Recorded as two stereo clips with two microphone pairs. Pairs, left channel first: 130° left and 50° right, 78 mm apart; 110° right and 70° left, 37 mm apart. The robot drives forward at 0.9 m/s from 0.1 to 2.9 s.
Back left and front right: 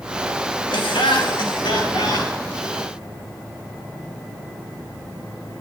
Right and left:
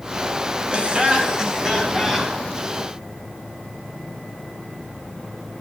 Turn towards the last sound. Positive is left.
turn(degrees=155)